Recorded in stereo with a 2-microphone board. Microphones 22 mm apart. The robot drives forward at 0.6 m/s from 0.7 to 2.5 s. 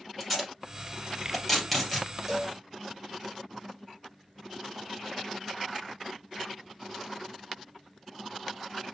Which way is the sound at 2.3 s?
10° right (ahead or behind).